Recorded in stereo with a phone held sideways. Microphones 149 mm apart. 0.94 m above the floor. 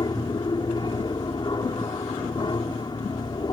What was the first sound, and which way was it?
An aircraft, 30° left (ahead or behind).